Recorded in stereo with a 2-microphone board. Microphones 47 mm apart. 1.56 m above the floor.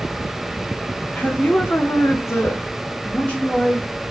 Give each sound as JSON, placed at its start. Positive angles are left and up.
{"t": 1.1, "sound": "a woman speaking", "side_deg": 35, "distance_m": 0.9}